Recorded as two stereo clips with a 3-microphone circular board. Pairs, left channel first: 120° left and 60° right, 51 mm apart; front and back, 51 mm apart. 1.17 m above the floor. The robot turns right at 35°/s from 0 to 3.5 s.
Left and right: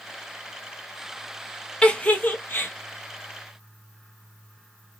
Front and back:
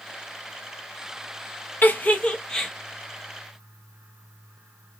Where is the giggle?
50° left, 0.9 m; by 2.7 s 80° left, 0.9 m.